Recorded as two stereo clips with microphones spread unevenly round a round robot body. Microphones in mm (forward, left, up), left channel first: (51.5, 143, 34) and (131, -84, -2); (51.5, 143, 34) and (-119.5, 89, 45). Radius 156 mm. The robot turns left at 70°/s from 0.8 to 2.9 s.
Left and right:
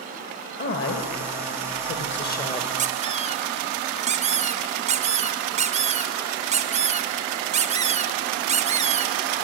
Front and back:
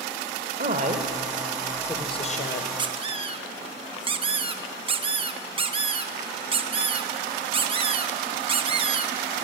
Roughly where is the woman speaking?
Behind.